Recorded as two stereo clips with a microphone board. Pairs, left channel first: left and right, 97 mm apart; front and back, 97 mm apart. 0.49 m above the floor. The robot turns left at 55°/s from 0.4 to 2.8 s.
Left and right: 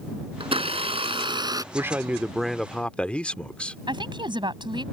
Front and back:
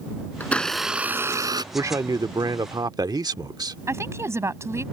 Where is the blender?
70° right; by 1.6 s 140° right.